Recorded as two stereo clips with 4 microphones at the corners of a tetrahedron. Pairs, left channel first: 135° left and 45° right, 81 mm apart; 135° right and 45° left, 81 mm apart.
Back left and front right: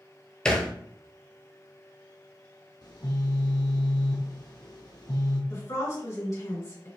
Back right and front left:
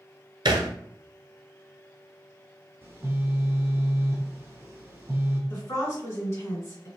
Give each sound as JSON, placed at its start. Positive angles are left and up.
{"t": 0.5, "sound": "a thud", "azimuth_deg": 55, "distance_m": 0.6}
{"t": 2.8, "sound": "a phone buzzing", "azimuth_deg": 105, "distance_m": 1.1}
{"t": 5.5, "sound": "a woman speaking", "azimuth_deg": 180, "distance_m": 1.9}